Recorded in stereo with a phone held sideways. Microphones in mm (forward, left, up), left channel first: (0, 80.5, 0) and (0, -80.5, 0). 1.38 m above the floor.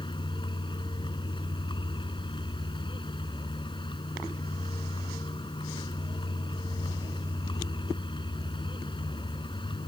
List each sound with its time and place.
0.0 s a vehicle: 30° left (ahead or behind)